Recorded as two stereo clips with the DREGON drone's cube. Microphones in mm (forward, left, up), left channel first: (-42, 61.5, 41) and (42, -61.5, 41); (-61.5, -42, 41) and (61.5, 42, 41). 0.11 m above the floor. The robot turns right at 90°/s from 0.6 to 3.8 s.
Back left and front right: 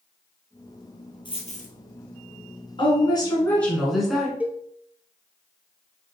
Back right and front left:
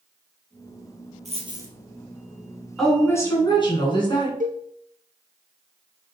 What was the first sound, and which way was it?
A dropped coin, 70° left.